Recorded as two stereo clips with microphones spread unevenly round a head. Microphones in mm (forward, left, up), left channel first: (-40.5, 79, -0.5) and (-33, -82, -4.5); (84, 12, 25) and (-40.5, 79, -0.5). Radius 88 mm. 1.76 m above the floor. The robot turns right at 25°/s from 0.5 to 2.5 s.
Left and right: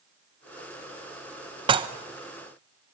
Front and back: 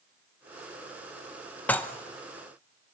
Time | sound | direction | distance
1.7 | dishes clattering | 75° right | 0.9 m